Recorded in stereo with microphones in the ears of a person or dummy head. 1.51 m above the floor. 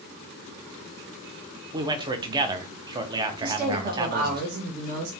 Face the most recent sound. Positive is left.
turn(degrees=-50)  # may be behind; listen again after turning